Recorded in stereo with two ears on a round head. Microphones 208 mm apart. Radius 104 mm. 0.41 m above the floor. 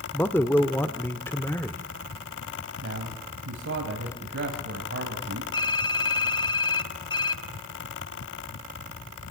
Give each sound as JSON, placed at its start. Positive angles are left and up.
{"t": 0.1, "sound": "a man speaking", "side_deg": 10, "distance_m": 0.8}
{"t": 2.8, "sound": "a man speaking", "side_deg": -60, "distance_m": 2.5}
{"t": 5.5, "sound": "typing on a keyboard", "side_deg": 20, "distance_m": 0.7}